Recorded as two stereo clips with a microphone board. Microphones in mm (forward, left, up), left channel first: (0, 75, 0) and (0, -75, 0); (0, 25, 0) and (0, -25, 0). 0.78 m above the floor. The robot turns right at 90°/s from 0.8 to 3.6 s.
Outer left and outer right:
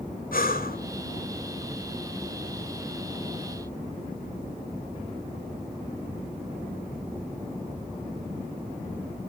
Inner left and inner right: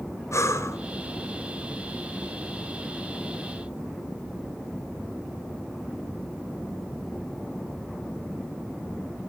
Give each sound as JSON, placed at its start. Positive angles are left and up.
{"t": 0.3, "sound": "breathing", "side_deg": 75, "distance_m": 2.0}